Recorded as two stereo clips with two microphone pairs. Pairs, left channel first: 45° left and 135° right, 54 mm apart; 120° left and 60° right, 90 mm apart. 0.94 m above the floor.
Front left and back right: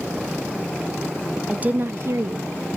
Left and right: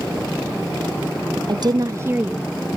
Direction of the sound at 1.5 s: 70° right.